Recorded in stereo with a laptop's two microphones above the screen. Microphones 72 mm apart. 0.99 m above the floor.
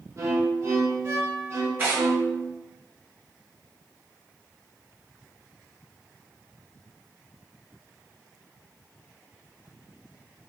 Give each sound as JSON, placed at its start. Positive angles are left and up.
{"t": 0.2, "sound": "a violin", "side_deg": -40, "distance_m": 0.7}
{"t": 1.8, "sound": "tearing paper", "side_deg": -25, "distance_m": 1.0}